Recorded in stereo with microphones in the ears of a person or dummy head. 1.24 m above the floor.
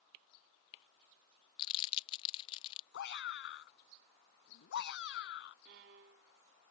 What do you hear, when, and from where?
1.6 s crumpling: 30° left (ahead or behind)
2.9 s a shout: 60° left (ahead or behind)
5.7 s a violin: 60° right (ahead or behind)